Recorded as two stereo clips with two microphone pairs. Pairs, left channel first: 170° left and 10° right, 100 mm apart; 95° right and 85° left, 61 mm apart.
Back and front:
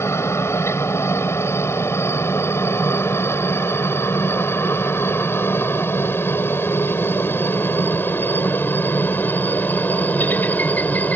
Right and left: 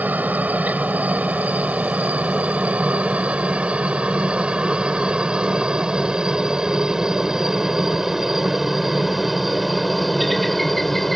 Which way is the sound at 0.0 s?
125° left.